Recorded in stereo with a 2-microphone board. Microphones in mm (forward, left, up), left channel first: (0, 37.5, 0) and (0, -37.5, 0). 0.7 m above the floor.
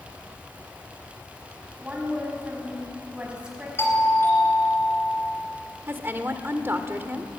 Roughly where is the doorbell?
Left.